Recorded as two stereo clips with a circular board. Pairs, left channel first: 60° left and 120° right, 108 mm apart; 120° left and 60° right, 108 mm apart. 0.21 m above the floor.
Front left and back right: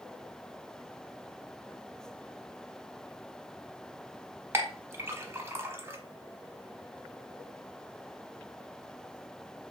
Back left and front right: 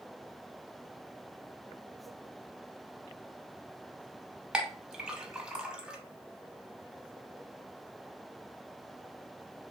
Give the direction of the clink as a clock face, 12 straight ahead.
4 o'clock.